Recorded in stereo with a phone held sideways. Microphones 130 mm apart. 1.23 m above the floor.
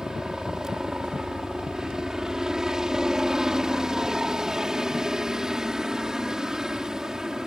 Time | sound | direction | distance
0.0 | a helicopter | 5° right (ahead or behind) | ?